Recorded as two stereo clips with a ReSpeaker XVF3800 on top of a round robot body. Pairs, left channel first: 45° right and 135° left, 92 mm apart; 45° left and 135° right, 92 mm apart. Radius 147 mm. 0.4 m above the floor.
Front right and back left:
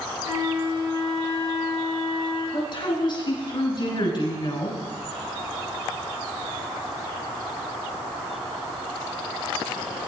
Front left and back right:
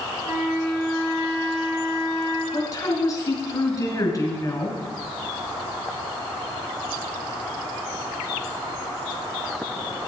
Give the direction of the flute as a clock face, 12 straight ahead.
9 o'clock.